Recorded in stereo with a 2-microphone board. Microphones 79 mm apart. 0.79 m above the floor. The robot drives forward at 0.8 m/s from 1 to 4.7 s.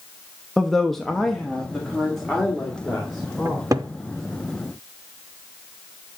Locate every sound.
0.6 s a woman speaking: 5° left (ahead or behind), 0.6 m; by 3.7 s centre (ahead or behind), 2.5 m
3.5 s a cupboard door: 45° right (ahead or behind), 0.5 m